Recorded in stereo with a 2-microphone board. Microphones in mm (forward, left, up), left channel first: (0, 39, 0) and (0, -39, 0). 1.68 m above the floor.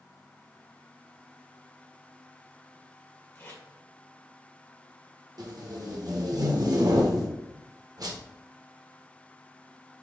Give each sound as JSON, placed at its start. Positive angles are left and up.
{"t": 3.4, "sound": "tape being pulled", "side_deg": 30, "distance_m": 1.5}
{"t": 5.4, "sound": "tape being pulled", "side_deg": -60, "distance_m": 1.0}